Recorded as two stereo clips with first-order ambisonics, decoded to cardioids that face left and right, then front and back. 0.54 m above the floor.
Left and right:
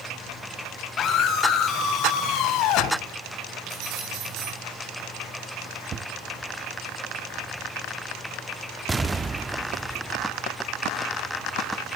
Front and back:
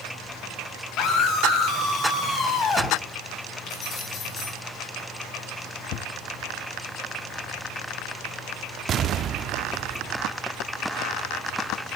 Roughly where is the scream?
Ahead left.